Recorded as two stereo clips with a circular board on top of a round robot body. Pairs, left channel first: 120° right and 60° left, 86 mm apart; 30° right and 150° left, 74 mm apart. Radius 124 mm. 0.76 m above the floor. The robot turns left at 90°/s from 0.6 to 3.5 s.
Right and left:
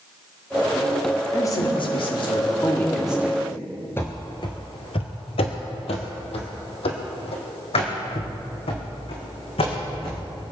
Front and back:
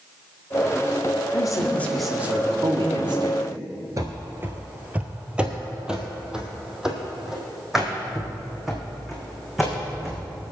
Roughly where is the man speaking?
Ahead right.